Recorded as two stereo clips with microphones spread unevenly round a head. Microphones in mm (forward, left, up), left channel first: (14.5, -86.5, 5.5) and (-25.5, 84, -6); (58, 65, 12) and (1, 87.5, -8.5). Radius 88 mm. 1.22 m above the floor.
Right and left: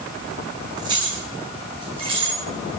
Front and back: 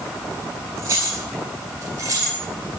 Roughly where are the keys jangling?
Behind.